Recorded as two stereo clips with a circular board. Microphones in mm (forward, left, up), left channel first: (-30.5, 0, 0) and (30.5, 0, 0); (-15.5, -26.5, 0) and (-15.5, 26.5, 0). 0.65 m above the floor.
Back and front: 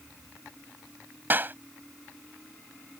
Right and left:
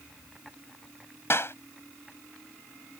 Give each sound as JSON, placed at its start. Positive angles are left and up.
{"t": 1.3, "sound": "a clap", "azimuth_deg": -55}